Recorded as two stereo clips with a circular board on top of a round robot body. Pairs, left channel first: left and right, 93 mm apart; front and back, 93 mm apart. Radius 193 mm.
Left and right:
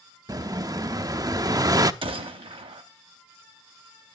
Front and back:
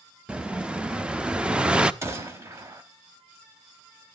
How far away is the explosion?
About 0.8 m.